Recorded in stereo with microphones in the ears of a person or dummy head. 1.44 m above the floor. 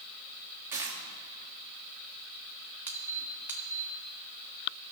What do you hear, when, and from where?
0.7 s a dropped coin: 15° right (ahead or behind), 1.3 m
2.9 s a squeak: 10° right (ahead or behind), 1.2 m